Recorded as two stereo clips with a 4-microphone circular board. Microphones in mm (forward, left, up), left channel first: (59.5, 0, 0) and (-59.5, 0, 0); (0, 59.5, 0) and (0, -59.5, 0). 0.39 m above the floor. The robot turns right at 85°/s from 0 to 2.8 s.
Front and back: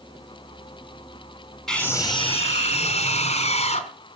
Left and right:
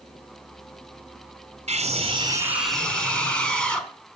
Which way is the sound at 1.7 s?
85° right.